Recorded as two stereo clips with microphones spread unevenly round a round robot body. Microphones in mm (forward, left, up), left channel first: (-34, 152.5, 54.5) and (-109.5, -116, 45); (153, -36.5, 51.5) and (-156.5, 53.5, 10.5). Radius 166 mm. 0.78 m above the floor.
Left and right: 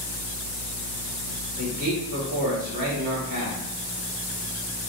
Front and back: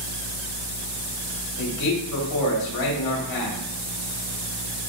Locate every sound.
1.6 s a man speaking: 45° right, 4.5 m